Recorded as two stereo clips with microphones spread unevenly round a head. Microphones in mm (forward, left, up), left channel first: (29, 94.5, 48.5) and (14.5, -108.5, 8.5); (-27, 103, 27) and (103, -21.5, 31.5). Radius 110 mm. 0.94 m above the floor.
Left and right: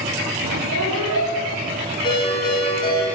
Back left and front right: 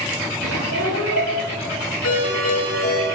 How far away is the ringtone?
About 8.5 m.